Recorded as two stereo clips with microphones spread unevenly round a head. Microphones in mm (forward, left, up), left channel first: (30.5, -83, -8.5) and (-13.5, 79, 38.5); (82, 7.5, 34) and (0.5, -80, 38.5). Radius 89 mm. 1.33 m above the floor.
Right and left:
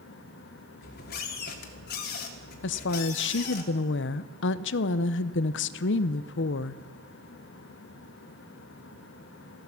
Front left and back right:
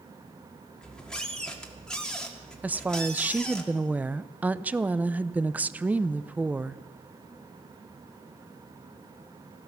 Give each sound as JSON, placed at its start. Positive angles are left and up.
{"t": 0.8, "sound": "a squeak", "azimuth_deg": -35, "distance_m": 1.8}
{"t": 2.6, "sound": "a woman speaking", "azimuth_deg": -55, "distance_m": 0.6}